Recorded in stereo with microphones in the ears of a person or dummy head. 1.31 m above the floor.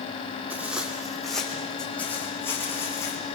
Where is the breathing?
I don't hear breathing.